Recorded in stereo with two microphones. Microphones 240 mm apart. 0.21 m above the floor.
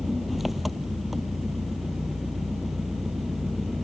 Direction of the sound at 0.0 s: Centre (ahead or behind).